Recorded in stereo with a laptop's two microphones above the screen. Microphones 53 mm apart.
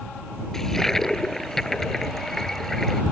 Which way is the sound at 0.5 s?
10° left (ahead or behind).